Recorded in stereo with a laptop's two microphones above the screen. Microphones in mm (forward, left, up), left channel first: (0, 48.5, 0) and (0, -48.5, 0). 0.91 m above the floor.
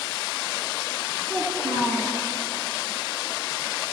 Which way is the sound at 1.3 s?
40° right (ahead or behind).